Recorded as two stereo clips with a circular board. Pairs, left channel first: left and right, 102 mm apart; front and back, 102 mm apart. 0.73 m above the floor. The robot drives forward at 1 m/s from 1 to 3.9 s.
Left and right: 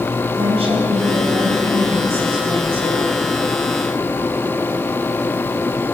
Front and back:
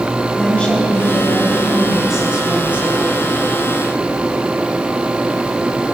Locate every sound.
0.3 s a woman speaking: 80° right, 4 m; by 3.1 s 110° right, 4 m